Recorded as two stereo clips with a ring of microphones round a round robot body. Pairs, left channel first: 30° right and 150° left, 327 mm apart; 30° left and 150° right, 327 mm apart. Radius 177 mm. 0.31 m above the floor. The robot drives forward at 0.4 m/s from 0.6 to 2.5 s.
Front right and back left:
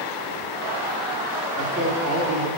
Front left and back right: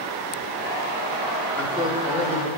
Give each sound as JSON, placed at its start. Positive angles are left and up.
{"t": 1.6, "sound": "a man speaking", "azimuth_deg": 150, "distance_m": 1.5}